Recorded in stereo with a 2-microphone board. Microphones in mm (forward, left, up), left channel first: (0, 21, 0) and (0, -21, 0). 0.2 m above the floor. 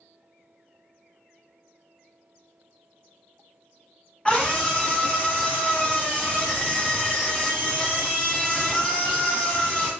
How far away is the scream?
About 1.4 m.